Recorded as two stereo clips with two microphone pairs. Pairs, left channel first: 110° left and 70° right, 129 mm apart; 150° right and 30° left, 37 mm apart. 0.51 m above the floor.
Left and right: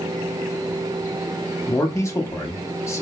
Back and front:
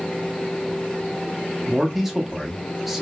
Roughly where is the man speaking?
Left.